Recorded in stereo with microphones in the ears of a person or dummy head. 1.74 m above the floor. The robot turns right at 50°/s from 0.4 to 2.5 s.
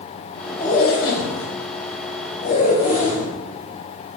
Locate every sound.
0.6 s a zipper: 40° left, 3 m; by 3.3 s 140° left, 3 m